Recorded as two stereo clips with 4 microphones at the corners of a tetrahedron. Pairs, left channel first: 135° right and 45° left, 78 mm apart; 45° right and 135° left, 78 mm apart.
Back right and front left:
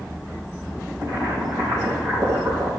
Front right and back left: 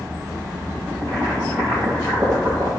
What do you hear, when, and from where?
1.0 s boiling: 95° left, 4.5 m